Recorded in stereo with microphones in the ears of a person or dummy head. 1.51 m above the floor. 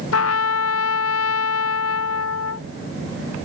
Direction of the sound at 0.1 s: 90° left.